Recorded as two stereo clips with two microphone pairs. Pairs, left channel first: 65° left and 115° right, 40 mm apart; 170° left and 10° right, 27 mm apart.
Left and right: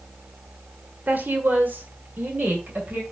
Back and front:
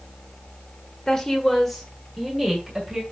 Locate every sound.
1.1 s a woman speaking: 130° right, 1.5 m; by 3.0 s 80° right, 2.5 m